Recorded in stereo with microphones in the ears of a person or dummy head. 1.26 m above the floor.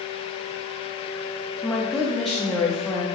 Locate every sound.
1.6 s a woman speaking: centre (ahead or behind), 0.7 m